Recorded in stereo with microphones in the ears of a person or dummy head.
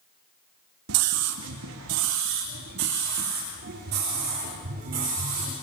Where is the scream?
75° right (ahead or behind), 1.7 m; by 5.5 s 40° right (ahead or behind), 5 m.